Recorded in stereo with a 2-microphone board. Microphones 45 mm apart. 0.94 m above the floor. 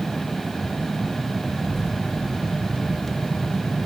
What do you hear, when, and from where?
1.6 s a child speaking: 10° left (ahead or behind), 7 m; by 3.8 s 35° left (ahead or behind), 5 m